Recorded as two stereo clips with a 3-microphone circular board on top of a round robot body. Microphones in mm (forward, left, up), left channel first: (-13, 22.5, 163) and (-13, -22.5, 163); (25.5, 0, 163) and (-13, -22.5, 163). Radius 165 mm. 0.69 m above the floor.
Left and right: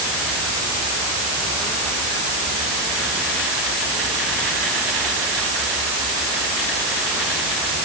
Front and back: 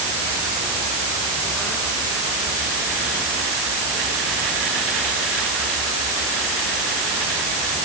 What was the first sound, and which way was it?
Only background noise.